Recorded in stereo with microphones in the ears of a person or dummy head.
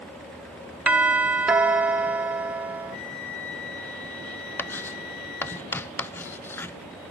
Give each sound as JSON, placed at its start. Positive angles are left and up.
{"t": 0.9, "sound": "a doorbell", "side_deg": -10, "distance_m": 0.5}
{"t": 2.9, "sound": "a flute", "side_deg": 50, "distance_m": 2.5}
{"t": 4.6, "sound": "writing", "side_deg": 5, "distance_m": 0.6}